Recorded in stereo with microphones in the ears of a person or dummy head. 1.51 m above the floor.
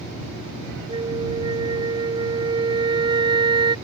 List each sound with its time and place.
0.9 s a flute: 25° right (ahead or behind)